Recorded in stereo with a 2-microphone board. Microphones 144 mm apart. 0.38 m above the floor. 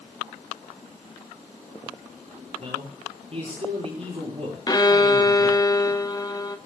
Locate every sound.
2.6 s a man speaking: 45° right (ahead or behind), 8.5 m
4.7 s a violin: 30° left (ahead or behind), 1.0 m